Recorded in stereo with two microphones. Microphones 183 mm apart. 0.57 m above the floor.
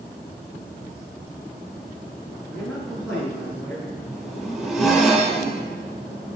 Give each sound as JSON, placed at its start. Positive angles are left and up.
{"t": 2.5, "sound": "a man speaking", "side_deg": 5, "distance_m": 6.0}
{"t": 4.1, "sound": "a zipper", "side_deg": 0, "distance_m": 3.5}